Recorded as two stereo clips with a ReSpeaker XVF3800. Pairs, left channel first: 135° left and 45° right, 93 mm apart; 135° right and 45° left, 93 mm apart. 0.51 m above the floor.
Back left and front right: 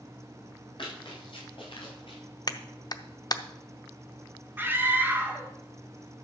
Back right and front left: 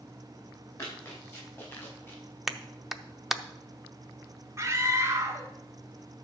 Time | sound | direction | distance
0.8 | running footsteps | 170° left | 6 m
2.5 | a clap | 130° left | 0.6 m
4.6 | a scream | 10° left | 1.5 m